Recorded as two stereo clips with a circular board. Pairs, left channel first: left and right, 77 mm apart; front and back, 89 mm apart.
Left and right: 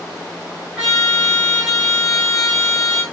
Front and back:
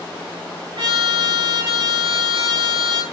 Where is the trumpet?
170° right, 6.5 m.